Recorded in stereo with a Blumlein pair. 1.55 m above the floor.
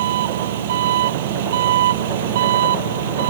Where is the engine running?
55° right.